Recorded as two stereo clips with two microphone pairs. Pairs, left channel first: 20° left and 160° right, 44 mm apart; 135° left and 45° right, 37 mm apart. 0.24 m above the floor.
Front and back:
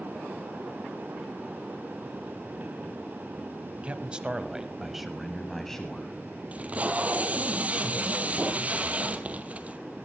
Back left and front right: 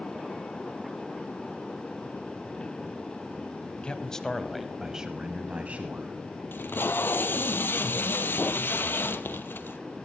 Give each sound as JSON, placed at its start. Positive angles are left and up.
{"t": 3.8, "sound": "a man speaking", "azimuth_deg": 170, "distance_m": 1.2}
{"t": 6.5, "sound": "tape being pulled", "azimuth_deg": 145, "distance_m": 1.0}